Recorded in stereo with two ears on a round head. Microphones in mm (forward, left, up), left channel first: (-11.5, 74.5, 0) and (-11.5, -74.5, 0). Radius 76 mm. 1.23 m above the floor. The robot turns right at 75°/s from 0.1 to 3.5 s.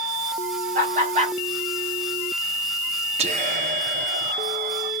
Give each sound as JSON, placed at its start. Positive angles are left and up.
{"t": 0.8, "sound": "laughter", "side_deg": -50, "distance_m": 0.9}
{"t": 3.2, "sound": "whispering", "side_deg": -40, "distance_m": 0.6}